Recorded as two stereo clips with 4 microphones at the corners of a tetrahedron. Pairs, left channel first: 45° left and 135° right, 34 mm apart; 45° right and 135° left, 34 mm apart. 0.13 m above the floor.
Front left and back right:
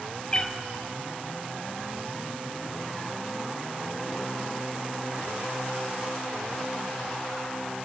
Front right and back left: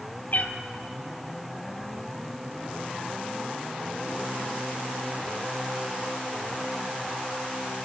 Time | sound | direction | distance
0.3 | a cat meowing | 20° right | 1.2 m